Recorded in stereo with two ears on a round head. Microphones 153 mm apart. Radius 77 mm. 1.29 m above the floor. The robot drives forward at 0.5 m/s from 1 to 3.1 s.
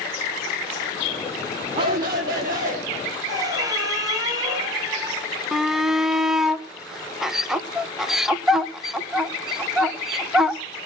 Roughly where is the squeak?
Right.